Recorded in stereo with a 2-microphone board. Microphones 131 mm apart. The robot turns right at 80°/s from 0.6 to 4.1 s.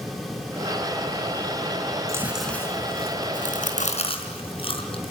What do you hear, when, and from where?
2.1 s chewing: 25° right (ahead or behind), 4 m; by 5.1 s 45° left (ahead or behind), 4 m